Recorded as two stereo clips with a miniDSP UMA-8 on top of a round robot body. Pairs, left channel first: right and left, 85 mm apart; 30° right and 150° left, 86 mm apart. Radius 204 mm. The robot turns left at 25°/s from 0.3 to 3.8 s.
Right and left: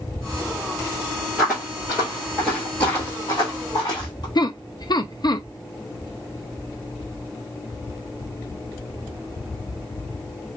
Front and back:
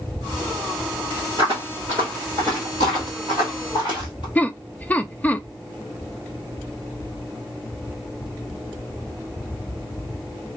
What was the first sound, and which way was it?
Footsteps, 175° left.